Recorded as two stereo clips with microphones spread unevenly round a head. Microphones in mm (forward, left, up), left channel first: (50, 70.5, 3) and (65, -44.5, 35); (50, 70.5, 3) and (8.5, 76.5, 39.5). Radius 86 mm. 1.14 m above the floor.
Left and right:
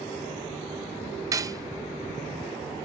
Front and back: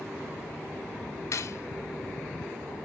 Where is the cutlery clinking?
25° right, 0.8 m.